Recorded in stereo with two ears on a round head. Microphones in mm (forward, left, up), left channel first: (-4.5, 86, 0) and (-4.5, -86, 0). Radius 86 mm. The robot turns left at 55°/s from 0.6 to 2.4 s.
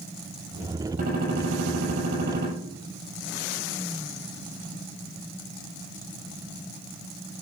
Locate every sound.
1.0 s a gunshot: 40° right, 7 m; by 2.5 s 120° right, 7 m